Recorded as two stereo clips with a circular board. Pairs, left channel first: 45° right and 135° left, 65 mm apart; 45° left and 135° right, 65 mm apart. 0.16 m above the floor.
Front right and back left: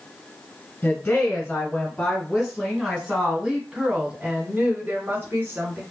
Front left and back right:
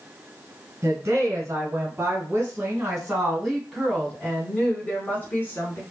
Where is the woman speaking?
100° right, 1.8 m; by 5.8 s 90° left, 1.7 m.